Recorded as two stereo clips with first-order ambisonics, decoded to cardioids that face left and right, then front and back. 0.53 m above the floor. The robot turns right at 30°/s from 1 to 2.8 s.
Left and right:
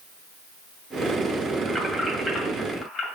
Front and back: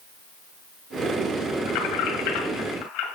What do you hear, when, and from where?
1.7 s keys jangling: 15° right, 2 m; by 3.1 s 20° left, 2 m